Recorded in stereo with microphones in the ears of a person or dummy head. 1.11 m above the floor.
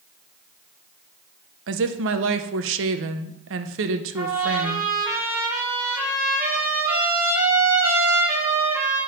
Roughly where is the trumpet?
Centre.